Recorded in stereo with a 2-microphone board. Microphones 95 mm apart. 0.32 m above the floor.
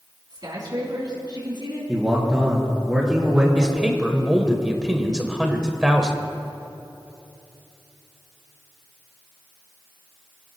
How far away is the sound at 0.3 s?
About 3 m.